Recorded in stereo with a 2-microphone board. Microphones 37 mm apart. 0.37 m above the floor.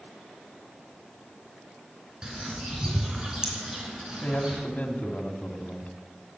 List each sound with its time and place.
2.2 s a bird: 20° right (ahead or behind), 3.5 m
4.2 s a man speaking: 40° left (ahead or behind), 2.5 m